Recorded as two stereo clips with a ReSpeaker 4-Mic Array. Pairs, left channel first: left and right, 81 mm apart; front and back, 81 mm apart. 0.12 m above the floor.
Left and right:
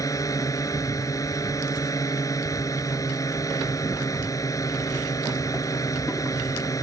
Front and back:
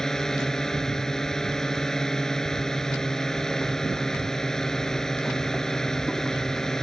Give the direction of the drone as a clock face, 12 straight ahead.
9 o'clock.